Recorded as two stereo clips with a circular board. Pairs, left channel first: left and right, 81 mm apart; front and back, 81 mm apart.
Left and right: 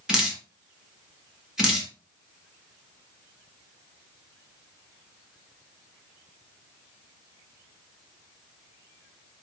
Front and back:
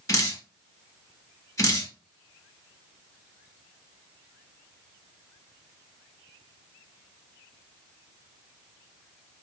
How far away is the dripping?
About 1.2 m.